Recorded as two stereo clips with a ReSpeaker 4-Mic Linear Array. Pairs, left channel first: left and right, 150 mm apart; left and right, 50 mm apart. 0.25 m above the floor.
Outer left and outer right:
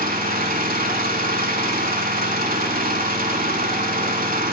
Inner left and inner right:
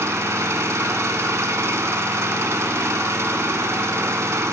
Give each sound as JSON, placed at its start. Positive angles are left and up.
{"t": 0.0, "sound": "an engine running", "side_deg": -70, "distance_m": 0.7}